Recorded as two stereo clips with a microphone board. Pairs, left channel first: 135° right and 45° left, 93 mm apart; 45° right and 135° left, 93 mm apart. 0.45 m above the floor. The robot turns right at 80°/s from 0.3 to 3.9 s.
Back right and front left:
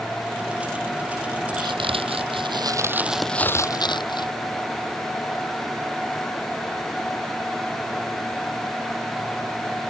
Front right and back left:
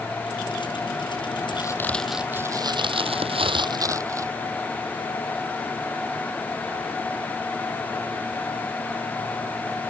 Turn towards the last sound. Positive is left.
turn(degrees=-170)